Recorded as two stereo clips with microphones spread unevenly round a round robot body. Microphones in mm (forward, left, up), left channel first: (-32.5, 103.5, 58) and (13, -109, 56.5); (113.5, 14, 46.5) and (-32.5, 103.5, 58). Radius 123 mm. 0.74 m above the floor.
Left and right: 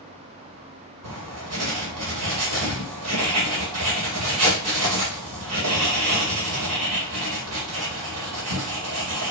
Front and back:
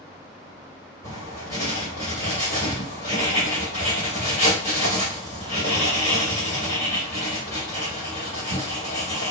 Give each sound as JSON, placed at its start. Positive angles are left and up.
{"t": 1.0, "sound": "writing", "azimuth_deg": -85, "distance_m": 1.5}